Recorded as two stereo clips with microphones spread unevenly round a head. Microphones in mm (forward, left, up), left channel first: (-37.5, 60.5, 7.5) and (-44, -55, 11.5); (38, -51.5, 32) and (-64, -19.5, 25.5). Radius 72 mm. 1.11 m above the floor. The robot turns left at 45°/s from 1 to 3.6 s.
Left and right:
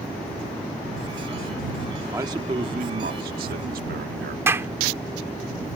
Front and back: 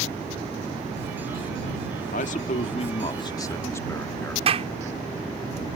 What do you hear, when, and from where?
2.1 s a man speaking: 20° right; by 4.4 s 85° right
4.5 s a clap: 165° right